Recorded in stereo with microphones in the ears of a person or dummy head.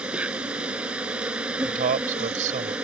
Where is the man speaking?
50° right (ahead or behind).